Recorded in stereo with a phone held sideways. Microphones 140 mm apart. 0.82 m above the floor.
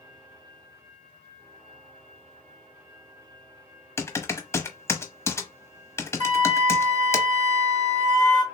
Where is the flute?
60° right (ahead or behind), 0.9 m.